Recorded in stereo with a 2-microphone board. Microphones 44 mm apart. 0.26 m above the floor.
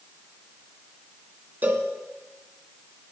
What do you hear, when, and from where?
1.6 s a cowbell: 45° right (ahead or behind), 1.5 m